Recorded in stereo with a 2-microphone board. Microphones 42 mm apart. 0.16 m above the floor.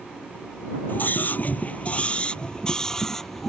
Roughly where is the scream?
Left.